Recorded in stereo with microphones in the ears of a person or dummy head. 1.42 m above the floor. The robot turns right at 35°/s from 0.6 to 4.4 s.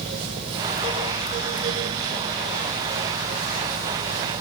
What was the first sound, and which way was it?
Only background noise.